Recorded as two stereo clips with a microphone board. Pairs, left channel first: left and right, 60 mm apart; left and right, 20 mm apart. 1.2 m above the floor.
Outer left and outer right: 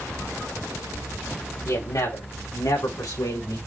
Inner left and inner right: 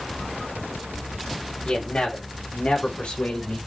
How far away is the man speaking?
About 5.5 m.